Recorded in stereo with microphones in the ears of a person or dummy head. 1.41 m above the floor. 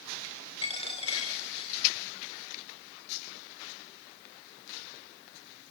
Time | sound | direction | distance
0.6 | a dropped coin | 35° left (ahead or behind) | 4 m